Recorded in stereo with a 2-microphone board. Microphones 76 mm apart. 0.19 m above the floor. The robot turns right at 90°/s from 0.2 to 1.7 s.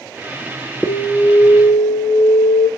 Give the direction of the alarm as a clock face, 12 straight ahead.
12 o'clock.